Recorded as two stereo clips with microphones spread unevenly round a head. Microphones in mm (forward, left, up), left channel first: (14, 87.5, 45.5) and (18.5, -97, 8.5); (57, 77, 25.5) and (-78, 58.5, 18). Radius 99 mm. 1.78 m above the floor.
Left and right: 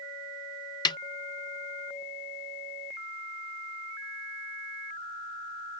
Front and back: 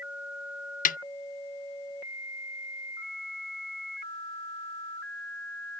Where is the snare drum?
25° left.